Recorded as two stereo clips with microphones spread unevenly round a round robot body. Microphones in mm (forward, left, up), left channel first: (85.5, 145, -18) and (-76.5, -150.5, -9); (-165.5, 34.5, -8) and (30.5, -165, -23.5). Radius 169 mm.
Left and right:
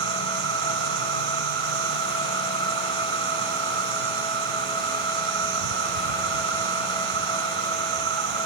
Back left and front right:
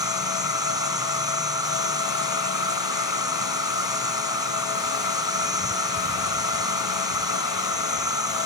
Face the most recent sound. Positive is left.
turn(degrees=-125)